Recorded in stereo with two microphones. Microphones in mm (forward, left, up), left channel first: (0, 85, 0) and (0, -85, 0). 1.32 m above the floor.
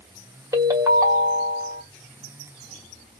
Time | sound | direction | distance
0.5 | a ringtone | 20° right (ahead or behind) | 1.1 m